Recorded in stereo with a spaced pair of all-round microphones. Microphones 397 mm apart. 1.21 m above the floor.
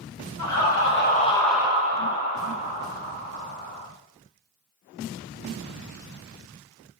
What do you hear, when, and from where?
0.4 s laughter: 45° left (ahead or behind), 1.0 m; by 3.9 s 75° right (ahead or behind), 1.6 m